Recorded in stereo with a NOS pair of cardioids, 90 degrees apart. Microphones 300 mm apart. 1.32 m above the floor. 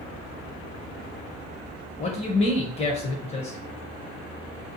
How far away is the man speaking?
About 0.7 m.